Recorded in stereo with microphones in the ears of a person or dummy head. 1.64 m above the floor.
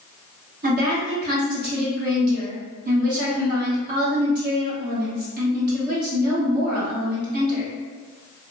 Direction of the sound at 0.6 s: 50° right (ahead or behind).